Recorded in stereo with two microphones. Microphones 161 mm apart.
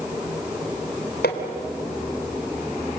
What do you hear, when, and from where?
1.2 s hammering: 80° left, 3 m